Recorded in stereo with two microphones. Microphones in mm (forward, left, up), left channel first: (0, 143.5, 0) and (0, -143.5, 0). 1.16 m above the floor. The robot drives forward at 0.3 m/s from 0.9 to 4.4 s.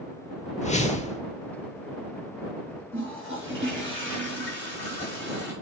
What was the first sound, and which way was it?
A whoosh, 25° left (ahead or behind).